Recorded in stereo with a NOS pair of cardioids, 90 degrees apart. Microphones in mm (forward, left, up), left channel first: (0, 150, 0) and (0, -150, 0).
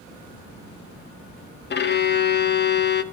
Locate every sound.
1.7 s a violin: 35° left, 0.9 m